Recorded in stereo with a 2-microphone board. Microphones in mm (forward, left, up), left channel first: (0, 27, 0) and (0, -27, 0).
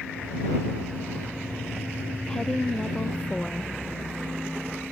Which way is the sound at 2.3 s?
10° left (ahead or behind).